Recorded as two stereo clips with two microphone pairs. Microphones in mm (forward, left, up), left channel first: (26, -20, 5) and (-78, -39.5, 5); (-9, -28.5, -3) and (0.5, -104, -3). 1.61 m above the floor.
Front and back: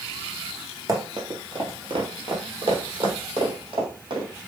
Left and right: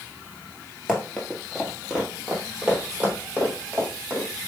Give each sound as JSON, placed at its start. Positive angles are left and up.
{"t": 0.9, "sound": "running footsteps", "azimuth_deg": 175, "distance_m": 2.0}